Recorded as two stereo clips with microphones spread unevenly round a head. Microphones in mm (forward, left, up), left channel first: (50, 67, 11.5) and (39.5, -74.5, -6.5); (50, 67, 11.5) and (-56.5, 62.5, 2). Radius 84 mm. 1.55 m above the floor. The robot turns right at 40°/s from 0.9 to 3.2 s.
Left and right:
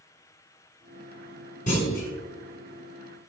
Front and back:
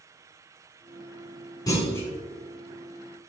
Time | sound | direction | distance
1.7 | a clunk | 55° left | 5.5 m